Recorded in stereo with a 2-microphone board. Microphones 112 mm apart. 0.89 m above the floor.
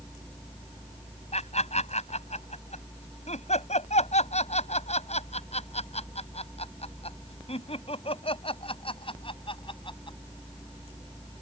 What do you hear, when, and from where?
1.3 s laughter: 75° left (ahead or behind); by 10.2 s 50° left (ahead or behind)